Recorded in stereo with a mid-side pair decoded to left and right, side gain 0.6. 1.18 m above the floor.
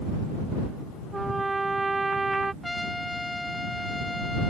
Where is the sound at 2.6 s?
10° left.